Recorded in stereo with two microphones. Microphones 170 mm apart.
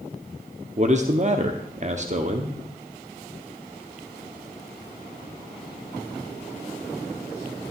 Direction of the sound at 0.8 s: 45° right (ahead or behind).